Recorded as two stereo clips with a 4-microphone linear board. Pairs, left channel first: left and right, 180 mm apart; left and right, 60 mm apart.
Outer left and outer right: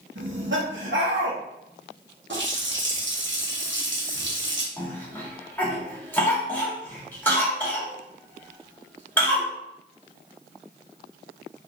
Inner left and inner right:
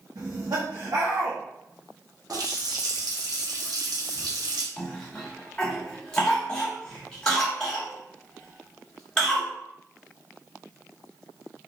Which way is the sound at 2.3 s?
75° right (ahead or behind).